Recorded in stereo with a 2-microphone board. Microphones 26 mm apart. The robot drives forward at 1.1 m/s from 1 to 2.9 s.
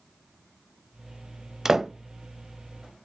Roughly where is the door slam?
Centre.